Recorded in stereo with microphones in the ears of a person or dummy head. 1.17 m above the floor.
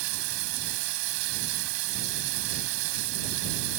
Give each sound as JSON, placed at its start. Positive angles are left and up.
{"t": 0.0, "sound": "running water", "side_deg": -80}